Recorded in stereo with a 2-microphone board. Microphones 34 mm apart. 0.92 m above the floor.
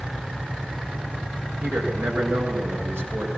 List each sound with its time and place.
1.6 s a man speaking: 85° right, 9 m